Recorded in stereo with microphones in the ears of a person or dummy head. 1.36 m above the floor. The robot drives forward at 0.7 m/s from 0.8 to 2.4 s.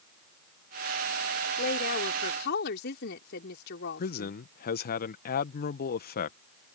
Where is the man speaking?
50° left (ahead or behind).